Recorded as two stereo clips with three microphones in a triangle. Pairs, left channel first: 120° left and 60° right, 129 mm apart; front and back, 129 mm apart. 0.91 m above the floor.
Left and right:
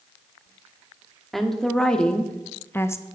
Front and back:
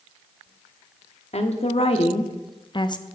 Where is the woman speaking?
30° left, 1.6 m; by 3.0 s 55° left, 0.7 m.